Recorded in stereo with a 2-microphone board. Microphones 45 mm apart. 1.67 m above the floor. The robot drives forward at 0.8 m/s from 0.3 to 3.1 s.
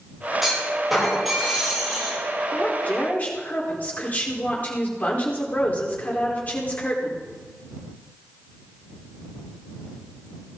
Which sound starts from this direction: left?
A woman speaking, at 2.5 s.